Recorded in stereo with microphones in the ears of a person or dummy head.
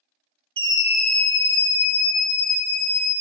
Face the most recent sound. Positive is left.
turn(degrees=60)  # may be behind; listen again after turning